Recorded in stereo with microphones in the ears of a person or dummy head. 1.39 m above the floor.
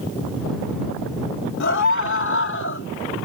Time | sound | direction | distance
1.6 | a scream | 65° left (ahead or behind) | ?